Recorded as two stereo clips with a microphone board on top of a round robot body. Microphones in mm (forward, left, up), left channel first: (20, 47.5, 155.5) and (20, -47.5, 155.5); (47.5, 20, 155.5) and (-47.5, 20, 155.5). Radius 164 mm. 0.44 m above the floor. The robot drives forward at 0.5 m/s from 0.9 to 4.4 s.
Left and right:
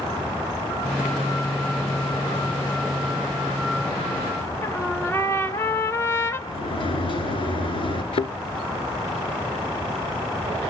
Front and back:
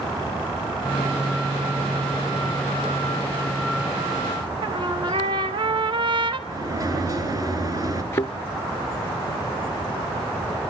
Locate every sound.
4.6 s a trumpet: 155° left, 1.8 m
6.5 s a sliding door: 125° left, 3 m
8.1 s a thud: 60° left, 0.6 m